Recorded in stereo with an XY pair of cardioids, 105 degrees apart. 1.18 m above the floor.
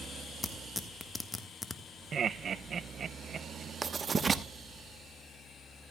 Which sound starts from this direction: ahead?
Tearing paper, at 0.4 s.